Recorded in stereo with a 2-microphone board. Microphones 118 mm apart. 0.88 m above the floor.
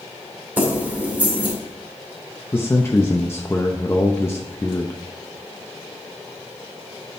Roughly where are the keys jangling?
Centre.